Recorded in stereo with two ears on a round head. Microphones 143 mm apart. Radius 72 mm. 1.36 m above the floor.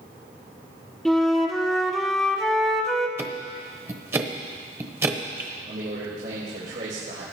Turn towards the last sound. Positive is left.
turn(degrees=-65)  # may be behind; listen again after turning